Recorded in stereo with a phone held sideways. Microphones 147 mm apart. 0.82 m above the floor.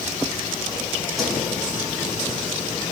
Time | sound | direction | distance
1.2 | a whoosh | centre (ahead or behind) | 8 m